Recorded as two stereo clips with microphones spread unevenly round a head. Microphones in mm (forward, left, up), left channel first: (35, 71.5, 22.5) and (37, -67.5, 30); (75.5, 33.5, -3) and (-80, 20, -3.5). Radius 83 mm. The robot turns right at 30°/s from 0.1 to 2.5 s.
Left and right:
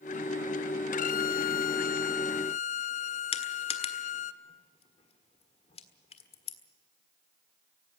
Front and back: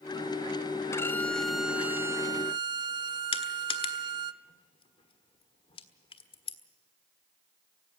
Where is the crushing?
55° left, 1.5 m.